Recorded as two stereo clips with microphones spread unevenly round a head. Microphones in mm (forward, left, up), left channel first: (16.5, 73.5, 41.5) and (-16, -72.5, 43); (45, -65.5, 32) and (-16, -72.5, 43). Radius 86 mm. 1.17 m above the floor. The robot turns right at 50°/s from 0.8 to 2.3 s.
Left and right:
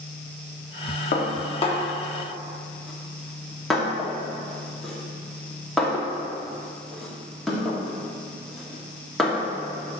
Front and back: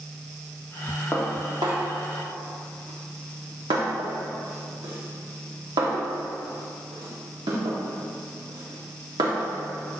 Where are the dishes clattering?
105° left, 1.5 m; by 9.5 s 165° left, 1.5 m.